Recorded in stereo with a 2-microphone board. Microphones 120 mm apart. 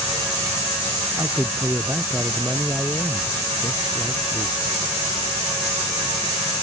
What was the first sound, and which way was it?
A man speaking, 20° right (ahead or behind).